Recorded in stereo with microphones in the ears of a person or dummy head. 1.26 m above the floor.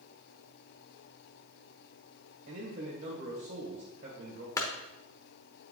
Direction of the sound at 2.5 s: 65° right (ahead or behind).